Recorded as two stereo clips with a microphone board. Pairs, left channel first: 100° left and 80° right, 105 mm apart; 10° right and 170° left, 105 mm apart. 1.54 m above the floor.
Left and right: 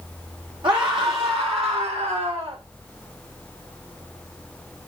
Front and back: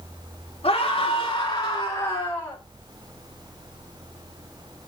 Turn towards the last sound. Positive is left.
turn(degrees=-85)